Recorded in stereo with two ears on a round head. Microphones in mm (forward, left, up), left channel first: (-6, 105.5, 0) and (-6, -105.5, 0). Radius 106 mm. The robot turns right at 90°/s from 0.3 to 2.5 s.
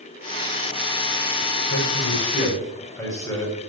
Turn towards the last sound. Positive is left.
turn(degrees=165)